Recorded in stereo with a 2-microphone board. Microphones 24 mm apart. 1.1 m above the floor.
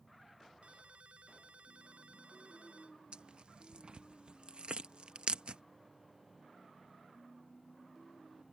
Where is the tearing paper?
50° right (ahead or behind).